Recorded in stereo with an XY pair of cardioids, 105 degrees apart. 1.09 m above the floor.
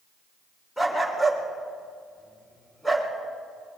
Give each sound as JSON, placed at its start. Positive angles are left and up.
{"t": 0.8, "sound": "a dog barking", "azimuth_deg": 5, "distance_m": 2.5}